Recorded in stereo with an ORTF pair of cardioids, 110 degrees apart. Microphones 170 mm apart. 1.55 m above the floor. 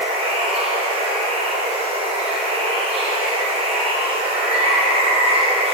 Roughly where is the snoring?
No snoring in this recording.